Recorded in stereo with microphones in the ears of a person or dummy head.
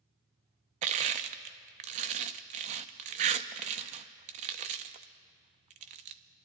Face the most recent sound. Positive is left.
turn(degrees=-35)  # may be behind; listen again after turning